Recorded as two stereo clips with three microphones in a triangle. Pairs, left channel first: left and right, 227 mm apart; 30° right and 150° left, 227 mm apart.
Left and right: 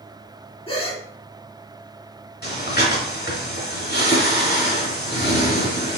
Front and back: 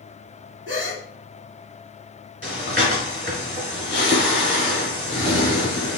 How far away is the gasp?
About 1.5 m.